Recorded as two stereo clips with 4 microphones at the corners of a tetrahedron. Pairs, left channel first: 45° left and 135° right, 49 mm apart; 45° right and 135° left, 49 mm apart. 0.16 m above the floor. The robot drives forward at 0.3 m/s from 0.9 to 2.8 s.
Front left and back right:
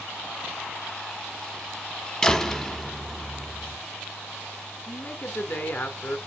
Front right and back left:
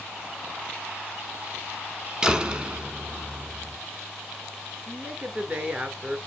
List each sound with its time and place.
2.2 s a door slam: 90° left, 0.9 m; by 3.8 s 120° left, 0.9 m
4.9 s a woman speaking: 75° left, 2 m